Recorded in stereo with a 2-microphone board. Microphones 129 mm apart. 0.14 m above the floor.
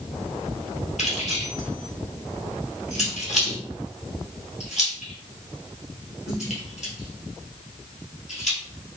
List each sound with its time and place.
1.0 s keys jangling: 65° left (ahead or behind), 1.8 m